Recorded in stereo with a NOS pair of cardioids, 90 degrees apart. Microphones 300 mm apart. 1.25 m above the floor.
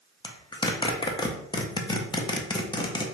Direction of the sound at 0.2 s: 15° left.